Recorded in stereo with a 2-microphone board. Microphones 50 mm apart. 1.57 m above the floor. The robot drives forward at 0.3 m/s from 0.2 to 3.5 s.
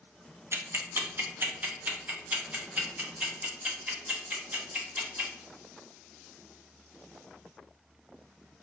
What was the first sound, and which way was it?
Ticking, 55° right (ahead or behind).